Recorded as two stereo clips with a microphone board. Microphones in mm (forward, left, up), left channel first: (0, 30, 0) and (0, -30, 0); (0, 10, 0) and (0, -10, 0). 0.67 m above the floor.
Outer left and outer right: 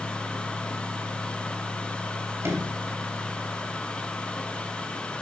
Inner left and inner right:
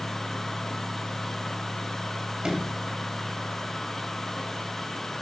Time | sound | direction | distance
2.4 | a sliding door | 50° right (ahead or behind) | 3 m